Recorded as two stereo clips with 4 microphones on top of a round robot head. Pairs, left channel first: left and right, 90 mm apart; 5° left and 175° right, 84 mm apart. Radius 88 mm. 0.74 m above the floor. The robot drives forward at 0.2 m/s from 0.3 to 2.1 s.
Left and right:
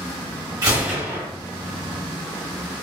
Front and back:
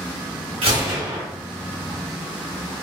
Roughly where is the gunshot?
Behind right.